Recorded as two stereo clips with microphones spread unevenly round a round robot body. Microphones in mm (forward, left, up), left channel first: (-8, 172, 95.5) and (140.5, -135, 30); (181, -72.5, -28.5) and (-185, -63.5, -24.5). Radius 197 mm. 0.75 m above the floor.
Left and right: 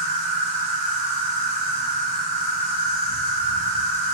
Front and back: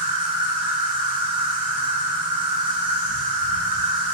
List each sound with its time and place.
0.0 s an insect: 150° left, 0.8 m